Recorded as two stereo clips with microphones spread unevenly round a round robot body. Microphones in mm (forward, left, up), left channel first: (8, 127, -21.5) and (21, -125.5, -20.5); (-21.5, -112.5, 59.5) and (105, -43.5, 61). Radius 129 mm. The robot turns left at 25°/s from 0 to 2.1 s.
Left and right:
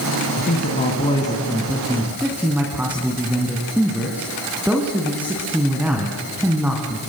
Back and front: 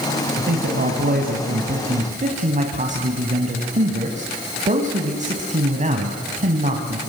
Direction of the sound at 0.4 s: 40° left.